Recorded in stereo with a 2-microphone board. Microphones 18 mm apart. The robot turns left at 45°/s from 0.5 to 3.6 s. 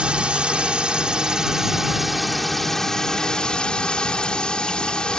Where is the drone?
95° right; by 5.2 s 125° left.